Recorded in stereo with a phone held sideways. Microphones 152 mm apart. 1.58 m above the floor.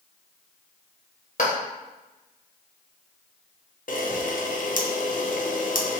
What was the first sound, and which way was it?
A clap, 60° left (ahead or behind).